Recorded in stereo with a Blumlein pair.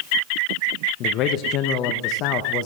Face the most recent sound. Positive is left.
turn(degrees=35)